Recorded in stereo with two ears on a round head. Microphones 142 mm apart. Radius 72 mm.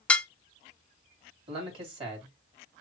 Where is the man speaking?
35° right (ahead or behind), 3 m.